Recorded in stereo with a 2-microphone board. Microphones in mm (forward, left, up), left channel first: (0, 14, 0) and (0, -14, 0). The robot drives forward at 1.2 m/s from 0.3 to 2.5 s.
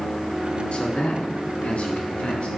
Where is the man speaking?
45° left (ahead or behind), 3 m; by 2.5 s 55° left (ahead or behind), 2.5 m.